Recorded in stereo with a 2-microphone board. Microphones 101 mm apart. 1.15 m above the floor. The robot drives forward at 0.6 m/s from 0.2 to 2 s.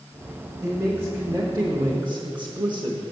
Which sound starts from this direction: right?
A man speaking, at 0.6 s.